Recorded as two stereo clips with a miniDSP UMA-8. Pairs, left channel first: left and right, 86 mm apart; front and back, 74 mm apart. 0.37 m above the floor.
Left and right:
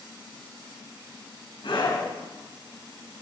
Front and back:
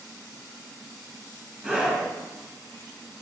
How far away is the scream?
About 4 m.